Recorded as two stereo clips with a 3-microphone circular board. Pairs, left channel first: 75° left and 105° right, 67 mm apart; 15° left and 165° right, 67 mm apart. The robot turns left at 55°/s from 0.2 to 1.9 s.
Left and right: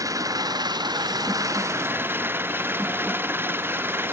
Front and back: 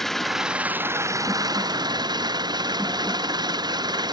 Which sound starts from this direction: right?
An engine running, at 0.0 s.